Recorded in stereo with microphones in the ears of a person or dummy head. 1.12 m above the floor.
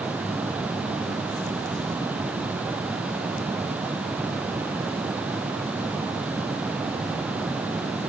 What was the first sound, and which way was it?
Only background noise.